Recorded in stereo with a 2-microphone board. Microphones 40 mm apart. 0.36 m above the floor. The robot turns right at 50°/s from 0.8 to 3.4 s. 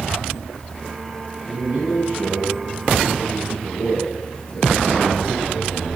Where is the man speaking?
110° right, 4.5 m; by 5.9 s 10° right, 4.5 m.